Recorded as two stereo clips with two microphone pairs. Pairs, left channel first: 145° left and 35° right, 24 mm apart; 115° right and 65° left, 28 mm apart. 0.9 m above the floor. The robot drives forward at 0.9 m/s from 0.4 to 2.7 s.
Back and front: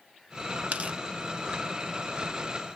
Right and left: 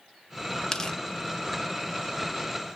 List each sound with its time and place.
0.7 s tearing paper: 50° right, 1.7 m; by 1.0 s 55° right, 1.6 m